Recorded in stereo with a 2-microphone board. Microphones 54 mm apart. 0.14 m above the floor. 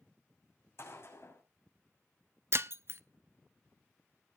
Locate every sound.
0.8 s a gunshot: 55° left (ahead or behind), 6.5 m
2.5 s breaking glass: 55° right (ahead or behind), 0.6 m